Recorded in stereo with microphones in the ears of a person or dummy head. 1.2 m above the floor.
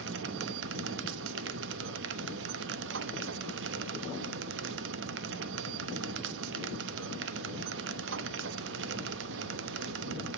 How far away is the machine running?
About 0.9 m.